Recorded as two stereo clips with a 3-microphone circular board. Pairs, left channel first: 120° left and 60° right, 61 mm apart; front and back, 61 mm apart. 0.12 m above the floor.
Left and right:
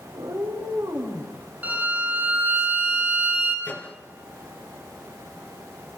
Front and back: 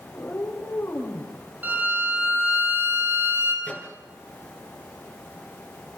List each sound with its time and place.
0.1 s a cat meowing: 60° right, 7 m; by 1.3 s 50° right, 6 m
1.6 s a violin: 120° right, 3.5 m
3.6 s a microwave: 65° left, 2.5 m